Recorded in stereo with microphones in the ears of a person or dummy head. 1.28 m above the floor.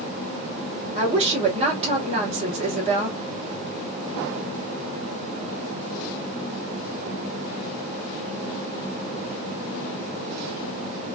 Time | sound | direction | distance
0.9 | a woman speaking | 35° right (ahead or behind) | 1.6 m